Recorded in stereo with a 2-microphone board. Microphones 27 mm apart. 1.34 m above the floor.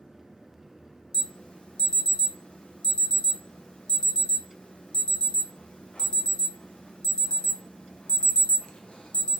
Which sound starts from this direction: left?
An alarm, at 1.1 s.